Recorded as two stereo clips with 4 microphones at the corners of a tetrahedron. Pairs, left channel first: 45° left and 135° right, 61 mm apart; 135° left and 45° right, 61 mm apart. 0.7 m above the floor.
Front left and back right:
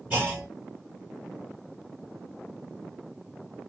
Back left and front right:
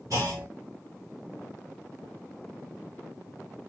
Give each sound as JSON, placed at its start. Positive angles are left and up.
{"t": 0.1, "sound": "a clunk", "azimuth_deg": -75, "distance_m": 2.0}